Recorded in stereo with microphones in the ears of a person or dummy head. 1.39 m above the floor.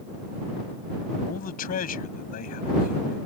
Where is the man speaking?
55° left (ahead or behind).